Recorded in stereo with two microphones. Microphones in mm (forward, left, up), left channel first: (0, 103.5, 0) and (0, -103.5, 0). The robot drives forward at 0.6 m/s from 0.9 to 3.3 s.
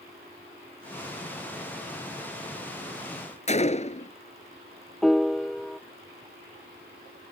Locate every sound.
3.5 s a gunshot: 35° left (ahead or behind)
5.0 s a piano: centre (ahead or behind)